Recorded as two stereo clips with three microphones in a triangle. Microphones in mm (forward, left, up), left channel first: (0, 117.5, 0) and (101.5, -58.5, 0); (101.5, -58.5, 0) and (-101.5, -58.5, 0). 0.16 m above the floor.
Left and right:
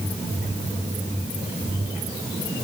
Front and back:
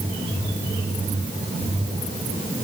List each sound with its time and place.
Only background noise.